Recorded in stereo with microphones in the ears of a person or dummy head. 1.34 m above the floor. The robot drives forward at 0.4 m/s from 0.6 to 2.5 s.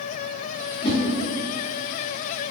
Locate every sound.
0.8 s a whoosh: 25° left (ahead or behind), 0.7 m